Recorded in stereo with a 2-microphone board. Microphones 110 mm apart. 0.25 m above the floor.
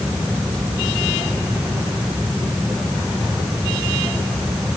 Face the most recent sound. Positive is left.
No sound to turn to.